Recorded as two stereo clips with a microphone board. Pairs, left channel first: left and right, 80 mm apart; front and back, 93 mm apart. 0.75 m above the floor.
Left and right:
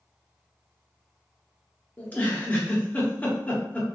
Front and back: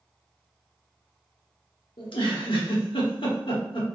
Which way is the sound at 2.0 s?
20° left.